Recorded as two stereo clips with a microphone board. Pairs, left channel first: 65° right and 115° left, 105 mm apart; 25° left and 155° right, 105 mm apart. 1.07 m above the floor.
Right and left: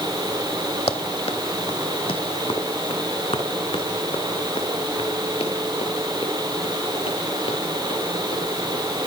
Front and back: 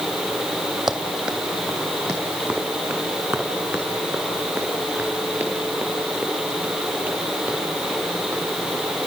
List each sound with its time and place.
0.9 s running footsteps: 75° right, 3 m; by 9.1 s 80° right, 13.5 m